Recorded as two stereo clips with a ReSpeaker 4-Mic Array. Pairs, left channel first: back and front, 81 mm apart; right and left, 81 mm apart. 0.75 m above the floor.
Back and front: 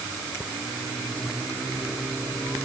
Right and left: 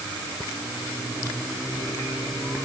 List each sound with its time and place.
Only background noise.